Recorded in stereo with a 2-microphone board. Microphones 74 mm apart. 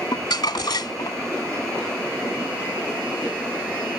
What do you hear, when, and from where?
0.1 s crumpling: 75° left (ahead or behind)